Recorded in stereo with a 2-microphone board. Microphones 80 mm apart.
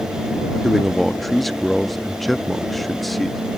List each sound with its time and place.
0.6 s a man speaking: centre (ahead or behind)